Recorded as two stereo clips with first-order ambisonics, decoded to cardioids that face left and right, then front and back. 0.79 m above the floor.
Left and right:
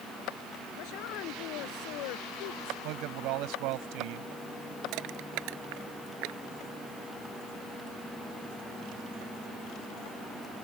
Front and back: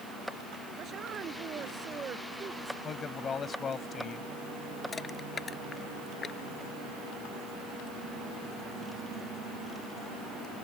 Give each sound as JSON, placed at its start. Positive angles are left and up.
{"t": 0.8, "sound": "a woman speaking", "azimuth_deg": 120}
{"t": 2.8, "sound": "a man speaking", "azimuth_deg": -65}
{"t": 4.9, "sound": "crushing", "azimuth_deg": -70}